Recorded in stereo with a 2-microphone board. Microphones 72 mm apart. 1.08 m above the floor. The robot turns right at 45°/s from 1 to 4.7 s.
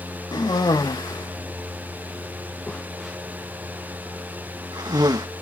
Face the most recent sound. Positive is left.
turn(degrees=-75)  # may be behind; listen again after turning